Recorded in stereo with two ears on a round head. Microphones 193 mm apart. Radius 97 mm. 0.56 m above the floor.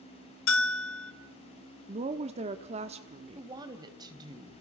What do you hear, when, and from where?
0.5 s a bell: 65° left (ahead or behind), 1.7 m
1.9 s a woman speaking: 30° right (ahead or behind), 1.1 m
3.4 s a woman speaking: 20° right (ahead or behind), 3 m